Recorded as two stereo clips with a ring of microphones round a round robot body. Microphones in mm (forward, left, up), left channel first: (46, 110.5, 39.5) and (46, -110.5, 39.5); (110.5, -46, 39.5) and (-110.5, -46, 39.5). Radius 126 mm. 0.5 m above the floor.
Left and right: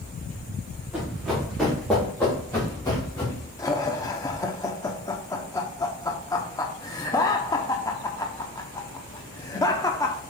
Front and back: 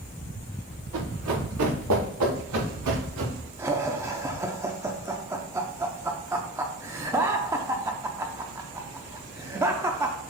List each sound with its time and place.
0.9 s running footsteps: 175° right, 3.5 m; by 3.5 s 160° left, 4 m
3.6 s laughter: 130° left, 0.8 m